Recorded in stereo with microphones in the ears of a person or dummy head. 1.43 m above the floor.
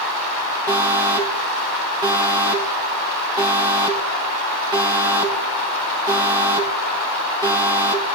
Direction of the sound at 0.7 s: 15° right (ahead or behind).